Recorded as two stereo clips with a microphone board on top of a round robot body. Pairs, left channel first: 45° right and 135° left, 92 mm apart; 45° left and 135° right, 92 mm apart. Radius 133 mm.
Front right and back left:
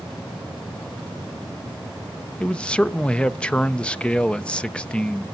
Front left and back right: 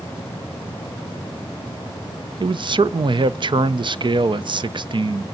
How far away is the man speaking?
About 0.7 m.